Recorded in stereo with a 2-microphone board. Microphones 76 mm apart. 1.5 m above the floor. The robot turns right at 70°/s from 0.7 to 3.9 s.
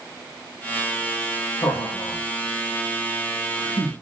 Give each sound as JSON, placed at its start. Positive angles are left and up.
{"t": 1.6, "sound": "laughter", "side_deg": 70, "distance_m": 1.5}